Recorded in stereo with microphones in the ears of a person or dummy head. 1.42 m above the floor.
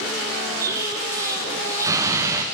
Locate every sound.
0.6 s an explosion: 15° right (ahead or behind), 0.7 m